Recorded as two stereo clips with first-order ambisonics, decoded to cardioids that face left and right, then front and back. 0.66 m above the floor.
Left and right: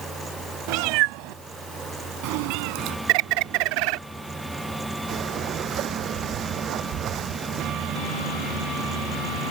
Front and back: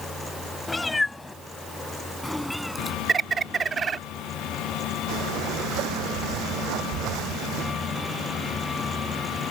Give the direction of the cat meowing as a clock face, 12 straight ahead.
3 o'clock.